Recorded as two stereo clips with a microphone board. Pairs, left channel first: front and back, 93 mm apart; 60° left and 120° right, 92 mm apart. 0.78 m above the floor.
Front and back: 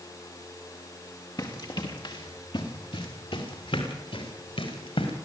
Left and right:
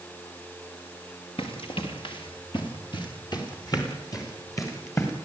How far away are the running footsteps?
About 6 m.